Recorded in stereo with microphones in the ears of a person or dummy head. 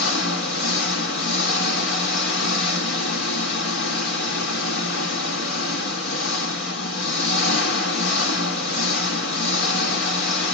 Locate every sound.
0.0 s an engine running: 65° left (ahead or behind), 1.7 m